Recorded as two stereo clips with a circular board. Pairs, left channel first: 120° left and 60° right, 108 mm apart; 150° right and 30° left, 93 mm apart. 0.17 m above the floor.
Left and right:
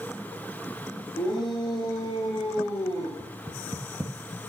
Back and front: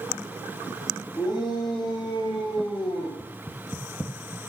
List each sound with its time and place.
1.2 s a shout: 165° left, 6 m; by 3.1 s straight behind, 6.5 m
3.2 s knocking: 90° right, 1.3 m